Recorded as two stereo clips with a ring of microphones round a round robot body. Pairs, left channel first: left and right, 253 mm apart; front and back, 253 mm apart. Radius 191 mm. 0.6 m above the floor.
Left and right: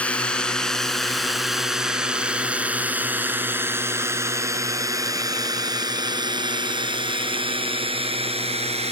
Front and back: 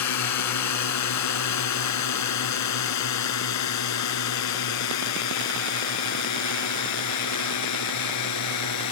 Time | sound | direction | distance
0.0 | a drone | 5° left | ?